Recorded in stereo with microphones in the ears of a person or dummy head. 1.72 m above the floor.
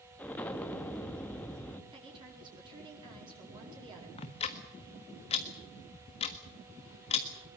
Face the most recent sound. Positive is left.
turn(degrees=30)  # may be behind; listen again after turning